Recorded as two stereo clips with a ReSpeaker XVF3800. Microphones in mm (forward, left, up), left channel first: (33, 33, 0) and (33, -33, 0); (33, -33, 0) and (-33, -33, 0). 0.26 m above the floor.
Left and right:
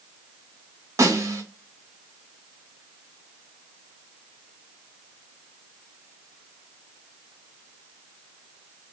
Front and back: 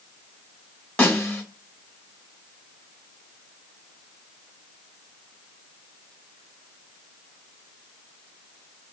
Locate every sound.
1.0 s a snare drum: 70° right, 1.2 m